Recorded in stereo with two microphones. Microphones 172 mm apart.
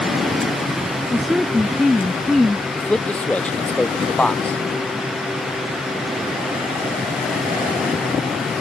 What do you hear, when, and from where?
1.1 s a woman speaking: centre (ahead or behind)
2.8 s a man speaking: 5° left (ahead or behind)